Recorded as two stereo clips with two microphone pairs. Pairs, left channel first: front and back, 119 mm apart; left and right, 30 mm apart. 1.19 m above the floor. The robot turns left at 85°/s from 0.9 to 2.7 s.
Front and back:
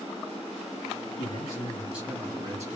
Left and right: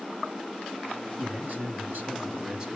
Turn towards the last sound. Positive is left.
turn(degrees=-160)